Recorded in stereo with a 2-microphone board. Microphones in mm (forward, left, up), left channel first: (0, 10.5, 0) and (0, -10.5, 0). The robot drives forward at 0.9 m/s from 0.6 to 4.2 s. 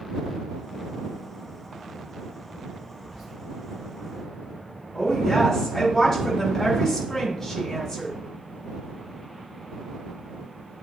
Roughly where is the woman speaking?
Centre.